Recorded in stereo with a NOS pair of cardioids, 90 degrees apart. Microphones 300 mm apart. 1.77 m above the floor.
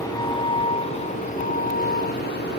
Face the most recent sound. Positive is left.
turn(degrees=35)